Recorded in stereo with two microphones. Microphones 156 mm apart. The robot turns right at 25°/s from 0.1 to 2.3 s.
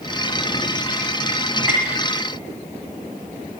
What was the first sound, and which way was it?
Tapping, 20° right (ahead or behind).